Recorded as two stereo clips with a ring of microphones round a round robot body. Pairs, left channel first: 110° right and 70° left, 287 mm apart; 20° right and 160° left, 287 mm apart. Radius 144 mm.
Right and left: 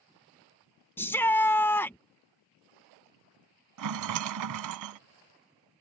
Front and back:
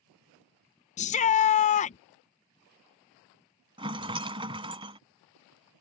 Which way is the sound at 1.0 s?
40° right.